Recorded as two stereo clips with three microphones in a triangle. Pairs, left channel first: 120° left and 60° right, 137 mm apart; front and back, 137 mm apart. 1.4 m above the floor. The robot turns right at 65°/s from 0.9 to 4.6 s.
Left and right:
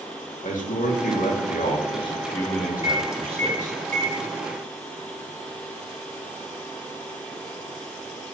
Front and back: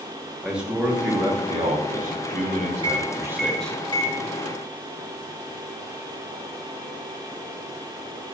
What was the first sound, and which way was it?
A man speaking, 100° left.